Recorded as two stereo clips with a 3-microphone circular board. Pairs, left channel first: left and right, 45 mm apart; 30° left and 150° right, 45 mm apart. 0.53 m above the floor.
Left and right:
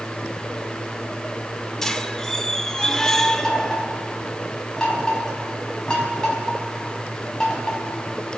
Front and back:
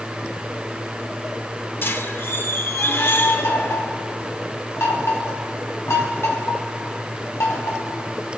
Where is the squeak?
10° left, 0.8 m.